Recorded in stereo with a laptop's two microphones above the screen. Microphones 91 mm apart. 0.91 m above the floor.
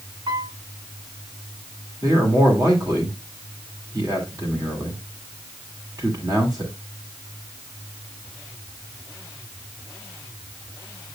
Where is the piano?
55° right (ahead or behind), 2 m.